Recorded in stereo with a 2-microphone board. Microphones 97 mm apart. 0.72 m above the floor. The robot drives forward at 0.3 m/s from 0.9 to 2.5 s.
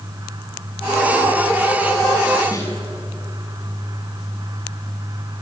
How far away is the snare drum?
About 6.5 m.